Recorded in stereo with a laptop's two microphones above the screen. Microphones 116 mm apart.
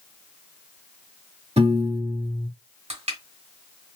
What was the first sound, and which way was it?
A piano, 65° right (ahead or behind).